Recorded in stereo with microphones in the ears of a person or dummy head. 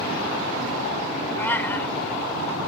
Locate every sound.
1.4 s a cat meowing: 15° left (ahead or behind)